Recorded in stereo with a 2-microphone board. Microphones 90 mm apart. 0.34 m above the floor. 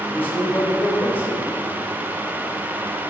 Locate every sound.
0.1 s a man speaking: 20° left (ahead or behind), 1.6 m